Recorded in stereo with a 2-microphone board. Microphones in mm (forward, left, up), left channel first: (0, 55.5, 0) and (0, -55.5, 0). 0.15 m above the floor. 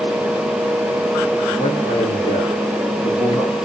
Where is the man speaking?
75° left (ahead or behind), 7 m.